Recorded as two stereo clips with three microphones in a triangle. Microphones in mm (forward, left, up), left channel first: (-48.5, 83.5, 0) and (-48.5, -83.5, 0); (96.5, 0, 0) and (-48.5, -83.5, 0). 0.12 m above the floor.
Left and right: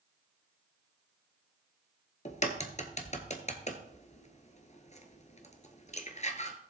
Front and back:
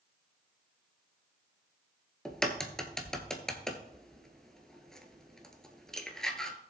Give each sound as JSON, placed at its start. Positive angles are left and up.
{"t": 2.2, "sound": "a crack", "azimuth_deg": 115, "distance_m": 1.3}